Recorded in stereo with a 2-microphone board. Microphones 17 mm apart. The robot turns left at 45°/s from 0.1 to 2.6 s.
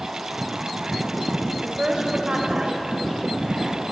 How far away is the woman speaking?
About 3 m.